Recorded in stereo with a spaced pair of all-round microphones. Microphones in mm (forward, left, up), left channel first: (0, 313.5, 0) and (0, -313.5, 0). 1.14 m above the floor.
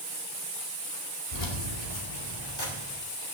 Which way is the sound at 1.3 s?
85° left.